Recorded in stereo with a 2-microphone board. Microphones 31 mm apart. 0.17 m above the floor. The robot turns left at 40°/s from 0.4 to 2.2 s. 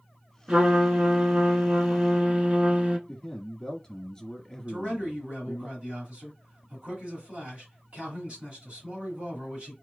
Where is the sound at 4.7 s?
40° right (ahead or behind), 2.0 m.